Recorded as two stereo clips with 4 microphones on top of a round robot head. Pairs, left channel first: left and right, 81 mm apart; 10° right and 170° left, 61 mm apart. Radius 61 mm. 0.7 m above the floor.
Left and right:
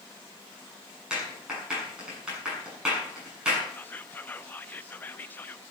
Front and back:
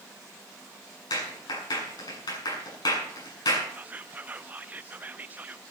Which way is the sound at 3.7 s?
135° left.